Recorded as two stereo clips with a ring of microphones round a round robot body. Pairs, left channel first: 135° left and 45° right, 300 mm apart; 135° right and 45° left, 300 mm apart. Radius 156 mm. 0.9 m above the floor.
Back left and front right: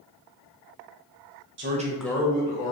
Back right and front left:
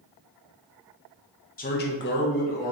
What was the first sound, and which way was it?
A man speaking, 80° right.